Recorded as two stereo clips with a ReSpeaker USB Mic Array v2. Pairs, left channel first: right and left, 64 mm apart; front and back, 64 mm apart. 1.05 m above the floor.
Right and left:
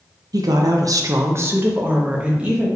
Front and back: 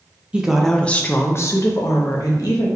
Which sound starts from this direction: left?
A woman speaking, at 0.3 s.